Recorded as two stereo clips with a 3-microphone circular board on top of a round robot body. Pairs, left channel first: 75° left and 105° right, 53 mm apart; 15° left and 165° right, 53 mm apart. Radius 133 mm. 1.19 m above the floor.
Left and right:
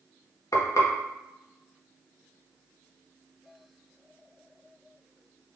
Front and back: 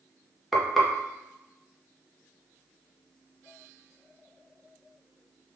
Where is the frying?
105° left, 1.0 m.